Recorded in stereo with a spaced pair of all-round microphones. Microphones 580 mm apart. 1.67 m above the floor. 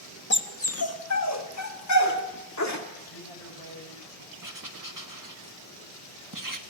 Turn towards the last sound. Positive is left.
turn(degrees=-35)  # may be behind; listen again after turning